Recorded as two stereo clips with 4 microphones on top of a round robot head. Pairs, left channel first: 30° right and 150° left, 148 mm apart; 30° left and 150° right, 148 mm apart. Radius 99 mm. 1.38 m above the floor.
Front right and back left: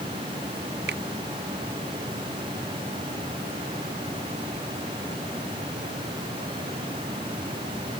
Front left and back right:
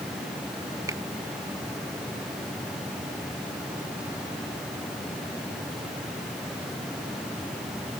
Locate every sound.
0.9 s a finger snap: 140° left